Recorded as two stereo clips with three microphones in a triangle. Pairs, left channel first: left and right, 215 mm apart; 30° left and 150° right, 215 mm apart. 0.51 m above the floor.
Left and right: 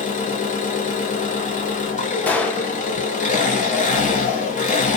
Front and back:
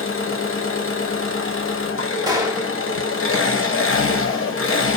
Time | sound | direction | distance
0.0 | an engine running | 40° left | 0.8 m
2.3 | a gunshot | 165° left | 0.5 m